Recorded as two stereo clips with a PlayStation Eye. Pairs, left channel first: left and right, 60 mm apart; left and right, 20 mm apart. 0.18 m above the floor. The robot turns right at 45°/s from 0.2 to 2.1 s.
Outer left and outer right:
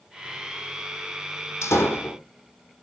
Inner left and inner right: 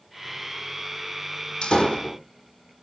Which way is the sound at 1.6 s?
55° left (ahead or behind).